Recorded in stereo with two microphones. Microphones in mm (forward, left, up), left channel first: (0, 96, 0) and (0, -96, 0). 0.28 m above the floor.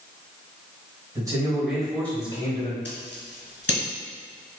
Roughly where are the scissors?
Left.